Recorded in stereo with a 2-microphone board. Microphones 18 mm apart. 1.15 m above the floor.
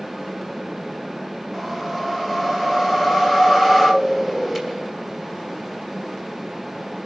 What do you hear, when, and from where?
1.5 s a whoosh: 10° right (ahead or behind), 5 m